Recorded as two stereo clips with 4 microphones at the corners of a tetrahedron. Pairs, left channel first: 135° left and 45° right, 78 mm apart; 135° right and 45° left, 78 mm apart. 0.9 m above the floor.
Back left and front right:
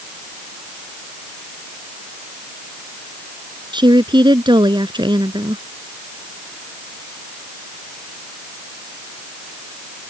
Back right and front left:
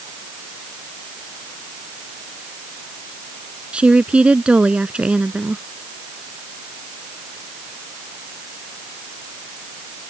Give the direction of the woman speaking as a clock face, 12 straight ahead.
1 o'clock.